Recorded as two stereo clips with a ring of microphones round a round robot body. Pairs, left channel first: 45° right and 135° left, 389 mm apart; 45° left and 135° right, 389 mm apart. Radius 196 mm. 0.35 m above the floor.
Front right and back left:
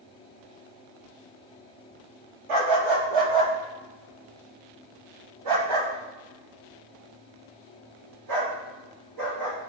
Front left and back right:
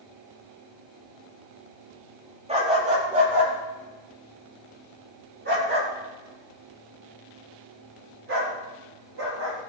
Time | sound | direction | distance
2.5 | a dog barking | 150° left | 4.5 m